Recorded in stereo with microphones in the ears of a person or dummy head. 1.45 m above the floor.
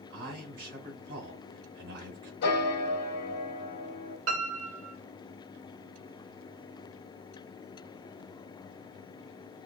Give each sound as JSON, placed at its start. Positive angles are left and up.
{"t": 0.1, "sound": "a man speaking", "side_deg": -55, "distance_m": 2.0}
{"t": 2.4, "sound": "a piano", "side_deg": 55, "distance_m": 1.4}
{"t": 4.3, "sound": "a piano", "side_deg": -80, "distance_m": 1.0}